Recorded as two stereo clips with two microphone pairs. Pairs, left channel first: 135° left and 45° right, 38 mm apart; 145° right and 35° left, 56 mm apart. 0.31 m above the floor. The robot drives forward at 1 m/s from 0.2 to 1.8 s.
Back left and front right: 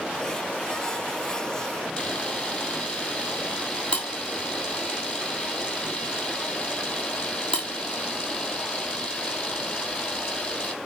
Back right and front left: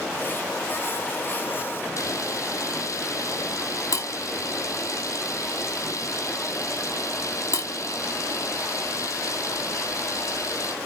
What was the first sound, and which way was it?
A camera shutter, 160° right.